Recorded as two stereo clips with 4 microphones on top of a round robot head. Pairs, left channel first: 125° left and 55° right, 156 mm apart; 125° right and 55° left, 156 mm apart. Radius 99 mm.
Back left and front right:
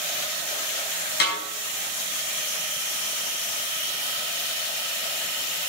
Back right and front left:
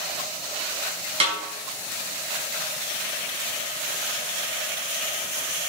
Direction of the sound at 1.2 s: 110° left.